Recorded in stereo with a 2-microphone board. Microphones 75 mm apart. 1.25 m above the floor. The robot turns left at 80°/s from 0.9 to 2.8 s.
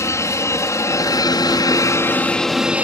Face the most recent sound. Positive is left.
turn(degrees=-20)